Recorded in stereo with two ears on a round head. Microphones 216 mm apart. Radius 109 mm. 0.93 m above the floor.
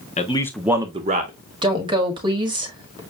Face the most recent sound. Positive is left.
turn(degrees=-20)  # may be behind; listen again after turning